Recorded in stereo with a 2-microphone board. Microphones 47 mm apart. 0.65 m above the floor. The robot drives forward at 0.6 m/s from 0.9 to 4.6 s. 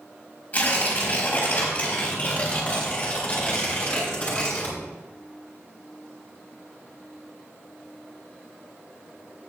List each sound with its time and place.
0.5 s tearing paper: 35° left (ahead or behind), 3.5 m; by 4.8 s 20° left (ahead or behind), 5.5 m